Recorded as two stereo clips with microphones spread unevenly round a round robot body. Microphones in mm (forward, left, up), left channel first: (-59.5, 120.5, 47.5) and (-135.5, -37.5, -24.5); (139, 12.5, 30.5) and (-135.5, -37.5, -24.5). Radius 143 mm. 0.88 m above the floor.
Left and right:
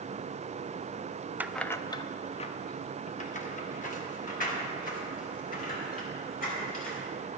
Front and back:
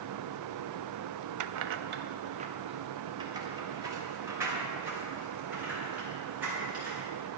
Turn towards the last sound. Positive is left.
turn(degrees=105)